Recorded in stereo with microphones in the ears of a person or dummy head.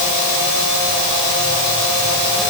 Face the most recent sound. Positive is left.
No sound to turn to.